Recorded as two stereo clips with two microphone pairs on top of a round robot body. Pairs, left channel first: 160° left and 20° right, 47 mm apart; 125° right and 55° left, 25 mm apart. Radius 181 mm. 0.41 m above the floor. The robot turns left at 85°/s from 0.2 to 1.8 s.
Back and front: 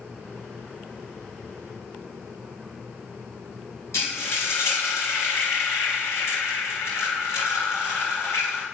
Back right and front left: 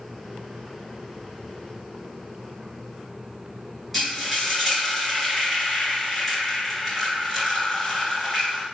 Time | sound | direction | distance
3.9 | frying | 145° left | 2 m